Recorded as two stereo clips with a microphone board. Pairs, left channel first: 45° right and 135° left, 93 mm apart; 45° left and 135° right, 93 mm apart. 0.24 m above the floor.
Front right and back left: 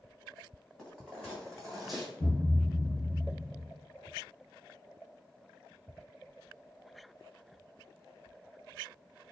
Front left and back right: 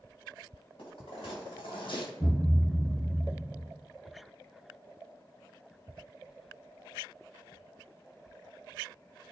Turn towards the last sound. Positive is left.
turn(degrees=-25)